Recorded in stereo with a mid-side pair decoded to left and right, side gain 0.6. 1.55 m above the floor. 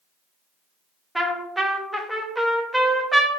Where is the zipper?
I don't hear a zipper.